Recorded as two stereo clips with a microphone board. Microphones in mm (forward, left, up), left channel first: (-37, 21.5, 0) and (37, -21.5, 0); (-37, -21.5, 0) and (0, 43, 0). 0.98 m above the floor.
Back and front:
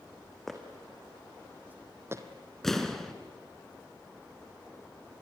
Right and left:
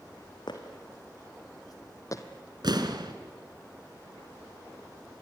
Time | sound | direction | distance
0.5 | footsteps | 120° right | 3 m
2.6 | an explosion | 65° left | 2 m